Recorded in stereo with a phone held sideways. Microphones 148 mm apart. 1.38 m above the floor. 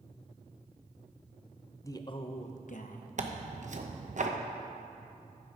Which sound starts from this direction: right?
Tearing paper, at 3.2 s.